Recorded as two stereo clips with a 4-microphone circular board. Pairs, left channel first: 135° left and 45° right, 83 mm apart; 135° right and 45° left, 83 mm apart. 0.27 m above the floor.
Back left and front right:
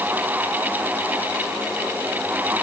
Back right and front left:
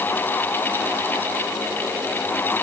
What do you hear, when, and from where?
Only background noise.